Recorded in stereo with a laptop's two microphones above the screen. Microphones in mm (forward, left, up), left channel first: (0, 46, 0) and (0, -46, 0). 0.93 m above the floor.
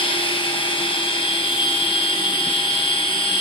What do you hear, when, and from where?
0.0 s a machine running: 80° left, 2.5 m